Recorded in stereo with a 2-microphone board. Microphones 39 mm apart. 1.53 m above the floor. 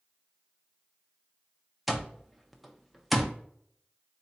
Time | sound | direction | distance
1.9 | an alarm clock | centre (ahead or behind) | 0.6 m